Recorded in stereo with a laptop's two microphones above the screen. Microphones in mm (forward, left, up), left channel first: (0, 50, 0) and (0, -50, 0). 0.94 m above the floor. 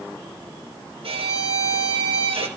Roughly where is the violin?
Right.